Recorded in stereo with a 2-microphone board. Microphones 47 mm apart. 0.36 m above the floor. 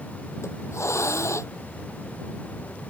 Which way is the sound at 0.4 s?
85° left.